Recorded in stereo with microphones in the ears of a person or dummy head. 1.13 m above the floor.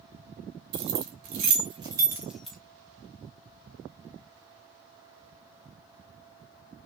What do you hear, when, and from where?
0.7 s keys jangling: 60° right (ahead or behind), 1.1 m; by 2.6 s 5° left (ahead or behind), 0.9 m